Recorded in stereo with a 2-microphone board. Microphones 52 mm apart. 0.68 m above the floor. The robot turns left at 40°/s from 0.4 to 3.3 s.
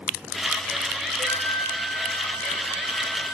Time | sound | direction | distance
1.2 | a flute | 135° left | 1.6 m